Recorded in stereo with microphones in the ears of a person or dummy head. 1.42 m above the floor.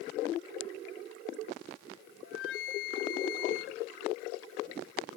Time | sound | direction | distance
2.2 | a flute | 75° left (ahead or behind) | 1.0 m